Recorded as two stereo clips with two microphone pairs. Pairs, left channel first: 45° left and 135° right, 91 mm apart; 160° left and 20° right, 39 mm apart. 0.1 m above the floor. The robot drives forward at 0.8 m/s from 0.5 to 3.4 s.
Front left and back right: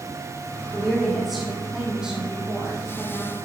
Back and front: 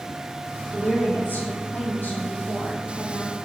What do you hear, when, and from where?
0.7 s a woman speaking: 125° left, 3 m; by 3.4 s 150° left, 4.5 m